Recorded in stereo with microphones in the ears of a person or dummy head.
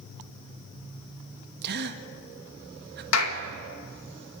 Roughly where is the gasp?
Right.